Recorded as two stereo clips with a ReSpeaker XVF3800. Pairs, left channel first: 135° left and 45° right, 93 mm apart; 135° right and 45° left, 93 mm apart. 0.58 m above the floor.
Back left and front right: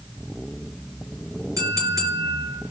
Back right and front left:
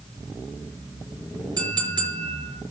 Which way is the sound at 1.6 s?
5° left.